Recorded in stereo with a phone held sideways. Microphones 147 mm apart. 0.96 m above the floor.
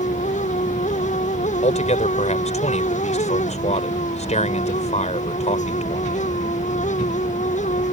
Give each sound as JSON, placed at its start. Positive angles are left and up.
{"t": 0.0, "sound": "a fan", "side_deg": 55}
{"t": 1.6, "sound": "a man speaking", "side_deg": 50}